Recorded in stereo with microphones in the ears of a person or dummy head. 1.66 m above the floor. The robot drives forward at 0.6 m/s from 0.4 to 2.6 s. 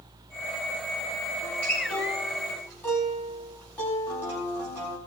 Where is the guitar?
5° left (ahead or behind), 4.5 m.